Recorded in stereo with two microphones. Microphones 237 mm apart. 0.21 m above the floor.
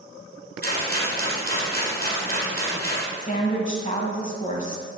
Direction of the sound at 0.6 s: 40° right (ahead or behind).